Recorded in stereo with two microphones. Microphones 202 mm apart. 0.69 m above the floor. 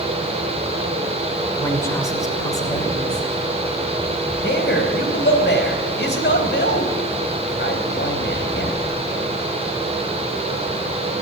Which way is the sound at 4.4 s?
65° left (ahead or behind).